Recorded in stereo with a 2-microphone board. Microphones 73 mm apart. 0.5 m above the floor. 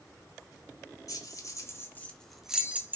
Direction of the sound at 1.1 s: 50° left (ahead or behind).